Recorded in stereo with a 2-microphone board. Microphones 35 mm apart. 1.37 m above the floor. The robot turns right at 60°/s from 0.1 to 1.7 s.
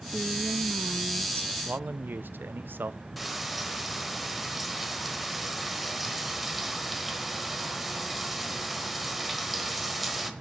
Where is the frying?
Centre (ahead or behind), 1.2 m.